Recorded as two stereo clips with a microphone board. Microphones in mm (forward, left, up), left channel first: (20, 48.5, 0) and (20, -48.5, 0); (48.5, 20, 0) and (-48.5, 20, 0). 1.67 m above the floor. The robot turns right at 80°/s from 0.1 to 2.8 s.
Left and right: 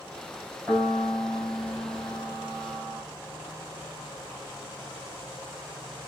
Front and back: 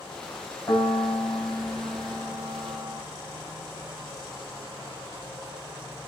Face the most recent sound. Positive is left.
turn(degrees=170)